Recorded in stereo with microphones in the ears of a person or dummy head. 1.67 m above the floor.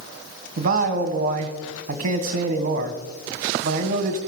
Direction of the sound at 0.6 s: 45° right (ahead or behind).